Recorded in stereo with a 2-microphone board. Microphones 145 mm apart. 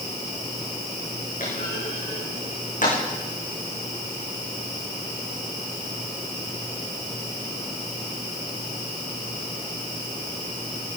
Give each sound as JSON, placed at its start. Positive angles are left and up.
{"t": 1.4, "sound": "a clunk", "side_deg": 60, "distance_m": 7.0}